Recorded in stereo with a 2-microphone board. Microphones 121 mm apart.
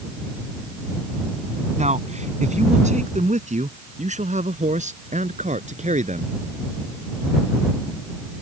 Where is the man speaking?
75° right (ahead or behind); by 6.3 s 80° right.